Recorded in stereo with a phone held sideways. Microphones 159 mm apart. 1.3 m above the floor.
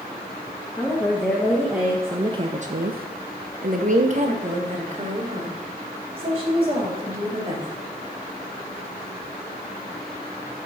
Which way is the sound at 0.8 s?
5° left (ahead or behind).